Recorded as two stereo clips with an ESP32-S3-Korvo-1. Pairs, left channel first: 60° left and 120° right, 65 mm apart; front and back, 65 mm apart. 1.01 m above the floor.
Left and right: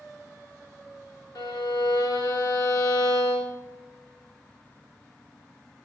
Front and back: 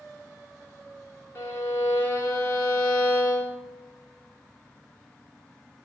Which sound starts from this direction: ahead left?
A violin, at 1.4 s.